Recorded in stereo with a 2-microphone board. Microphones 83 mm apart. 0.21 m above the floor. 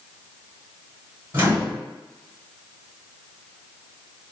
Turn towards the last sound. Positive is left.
turn(degrees=-25)  # may be behind; listen again after turning